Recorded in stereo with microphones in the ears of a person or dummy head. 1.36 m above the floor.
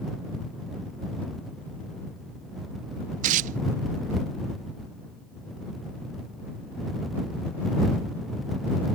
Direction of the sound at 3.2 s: 45° right (ahead or behind).